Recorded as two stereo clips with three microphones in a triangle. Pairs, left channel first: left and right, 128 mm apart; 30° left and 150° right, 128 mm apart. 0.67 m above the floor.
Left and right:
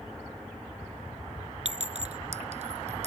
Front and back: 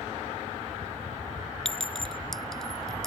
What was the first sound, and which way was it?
A clink, 55° right.